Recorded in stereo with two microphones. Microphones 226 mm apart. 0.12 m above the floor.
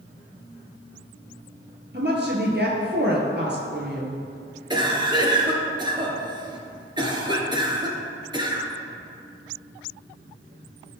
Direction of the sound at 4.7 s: 20° right (ahead or behind).